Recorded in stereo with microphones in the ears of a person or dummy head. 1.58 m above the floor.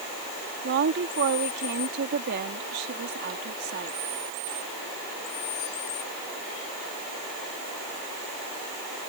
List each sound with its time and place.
0.6 s a woman speaking: 55° right (ahead or behind)